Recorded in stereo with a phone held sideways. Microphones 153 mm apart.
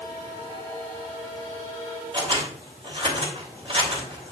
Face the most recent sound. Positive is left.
turn(degrees=-40)  # may be behind; listen again after turning